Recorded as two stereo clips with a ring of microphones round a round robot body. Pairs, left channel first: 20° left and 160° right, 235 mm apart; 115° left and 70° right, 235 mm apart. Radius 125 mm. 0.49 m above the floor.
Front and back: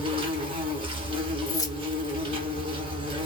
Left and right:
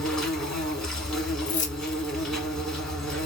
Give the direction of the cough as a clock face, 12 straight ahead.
No cough in this recording.